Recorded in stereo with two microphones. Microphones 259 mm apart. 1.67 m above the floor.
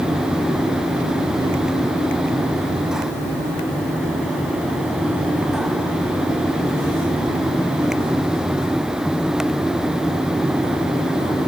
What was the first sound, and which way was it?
Only background noise.